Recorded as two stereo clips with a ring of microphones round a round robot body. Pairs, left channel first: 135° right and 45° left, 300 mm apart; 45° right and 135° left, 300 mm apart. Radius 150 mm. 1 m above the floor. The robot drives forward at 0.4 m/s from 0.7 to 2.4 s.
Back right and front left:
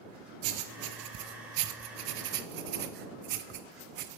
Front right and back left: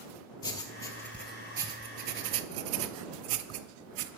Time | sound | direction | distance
0.4 | writing | 30° left | 0.8 m